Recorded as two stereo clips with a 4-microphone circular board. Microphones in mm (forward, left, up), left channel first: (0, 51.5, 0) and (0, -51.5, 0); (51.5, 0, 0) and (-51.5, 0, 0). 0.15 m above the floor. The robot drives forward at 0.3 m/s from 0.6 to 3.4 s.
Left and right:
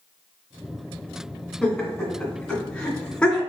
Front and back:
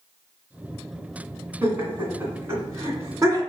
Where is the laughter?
145° left, 1.7 m; by 3.4 s 165° left, 2.0 m.